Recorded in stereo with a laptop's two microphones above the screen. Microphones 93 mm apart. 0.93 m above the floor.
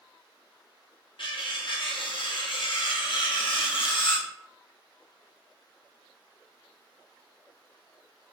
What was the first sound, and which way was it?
Cutlery clinking, 65° left (ahead or behind).